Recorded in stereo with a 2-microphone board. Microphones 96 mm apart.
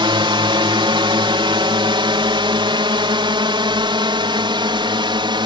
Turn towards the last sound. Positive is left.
turn(degrees=-55)  # may be behind; listen again after turning